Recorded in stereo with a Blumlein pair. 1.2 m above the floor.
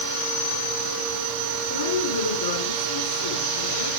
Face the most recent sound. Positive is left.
turn(degrees=70)